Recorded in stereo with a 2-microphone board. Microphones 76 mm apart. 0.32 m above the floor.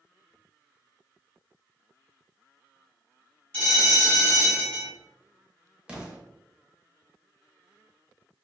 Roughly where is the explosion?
Centre.